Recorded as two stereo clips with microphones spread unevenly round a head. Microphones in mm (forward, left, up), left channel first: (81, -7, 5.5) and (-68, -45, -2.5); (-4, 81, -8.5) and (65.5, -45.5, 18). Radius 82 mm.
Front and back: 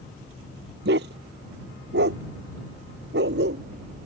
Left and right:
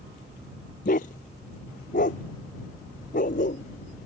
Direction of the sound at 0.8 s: 165° left.